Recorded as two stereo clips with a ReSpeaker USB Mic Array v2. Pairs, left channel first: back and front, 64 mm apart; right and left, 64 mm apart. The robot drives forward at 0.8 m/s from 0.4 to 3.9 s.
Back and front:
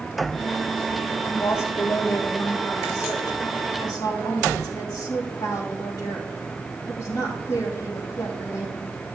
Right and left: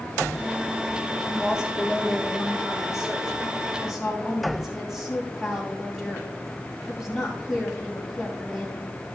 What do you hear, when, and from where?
1.2 s a woman speaking: 160° left, 1.6 m; by 9.0 s 175° left, 3.5 m